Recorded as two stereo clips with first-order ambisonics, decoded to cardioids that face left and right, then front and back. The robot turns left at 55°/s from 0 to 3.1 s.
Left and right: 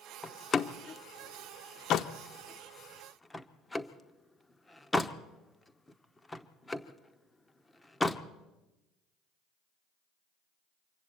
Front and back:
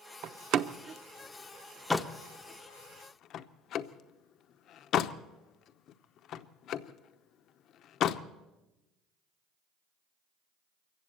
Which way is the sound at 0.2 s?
170° left.